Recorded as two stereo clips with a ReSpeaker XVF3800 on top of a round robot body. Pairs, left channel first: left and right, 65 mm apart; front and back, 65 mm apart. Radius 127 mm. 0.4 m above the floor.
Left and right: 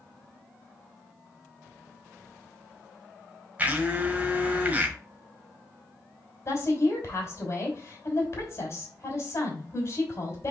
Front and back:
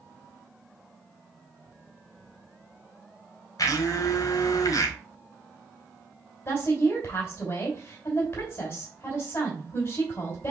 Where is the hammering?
I don't hear hammering.